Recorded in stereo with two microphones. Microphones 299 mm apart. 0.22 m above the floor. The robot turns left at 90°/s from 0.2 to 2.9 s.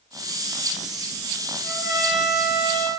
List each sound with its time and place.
1.6 s a trumpet: 120° left, 1.0 m; by 2.9 s 10° left, 1.0 m